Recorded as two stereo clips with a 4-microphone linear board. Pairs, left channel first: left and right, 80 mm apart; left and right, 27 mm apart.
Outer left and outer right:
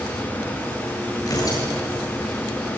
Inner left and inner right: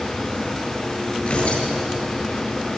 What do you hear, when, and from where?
1.2 s tearing paper: 55° left (ahead or behind), 8 m